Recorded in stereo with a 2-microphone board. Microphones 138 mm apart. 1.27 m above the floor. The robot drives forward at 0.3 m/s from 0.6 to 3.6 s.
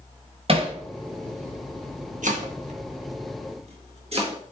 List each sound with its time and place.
0.5 s hammering: 45° right (ahead or behind), 1.0 m; by 0.8 s 40° right (ahead or behind), 1.0 m
2.2 s chopping: 65° right (ahead or behind), 1.0 m; by 4.4 s 50° right (ahead or behind), 1.2 m